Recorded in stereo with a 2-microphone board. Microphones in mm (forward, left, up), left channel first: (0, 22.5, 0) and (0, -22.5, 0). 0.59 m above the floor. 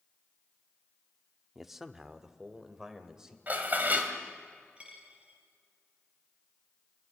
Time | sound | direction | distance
1.6 | a man speaking | 5° right (ahead or behind) | 0.9 m
3.5 | dishes clattering | 40° right (ahead or behind) | 2.5 m
4.8 | a dropped coin | 25° right (ahead or behind) | 3.5 m